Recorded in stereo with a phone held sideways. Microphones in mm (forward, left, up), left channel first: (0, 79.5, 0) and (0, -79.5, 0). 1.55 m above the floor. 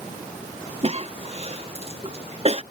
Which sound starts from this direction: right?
A cough, at 0.8 s.